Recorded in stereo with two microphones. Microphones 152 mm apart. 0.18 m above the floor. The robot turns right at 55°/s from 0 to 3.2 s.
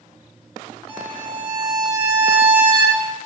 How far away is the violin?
About 1.9 m.